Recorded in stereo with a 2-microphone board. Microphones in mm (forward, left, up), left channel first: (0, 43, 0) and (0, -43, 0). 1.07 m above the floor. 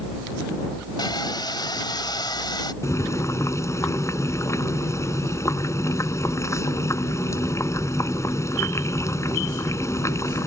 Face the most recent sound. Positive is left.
turn(degrees=35)  # may be behind; listen again after turning